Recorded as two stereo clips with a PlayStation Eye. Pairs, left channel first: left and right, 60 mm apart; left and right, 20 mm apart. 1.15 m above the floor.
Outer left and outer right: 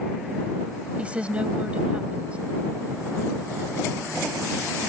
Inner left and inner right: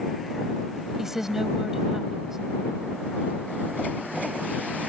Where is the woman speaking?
20° right (ahead or behind).